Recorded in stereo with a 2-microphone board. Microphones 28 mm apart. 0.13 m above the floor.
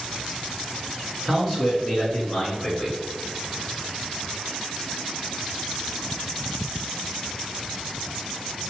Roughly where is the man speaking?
Centre.